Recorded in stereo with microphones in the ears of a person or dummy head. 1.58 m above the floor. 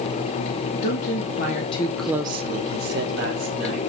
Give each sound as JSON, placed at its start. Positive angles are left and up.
{"t": 0.8, "sound": "a woman speaking", "side_deg": 60, "distance_m": 1.3}